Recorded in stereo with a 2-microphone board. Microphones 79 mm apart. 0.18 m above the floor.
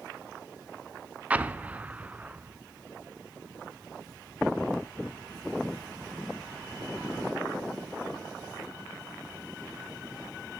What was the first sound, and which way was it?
An explosion, 20° right (ahead or behind).